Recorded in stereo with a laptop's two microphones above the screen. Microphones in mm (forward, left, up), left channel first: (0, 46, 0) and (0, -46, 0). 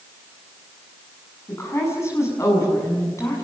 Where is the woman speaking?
30° left (ahead or behind), 7 m.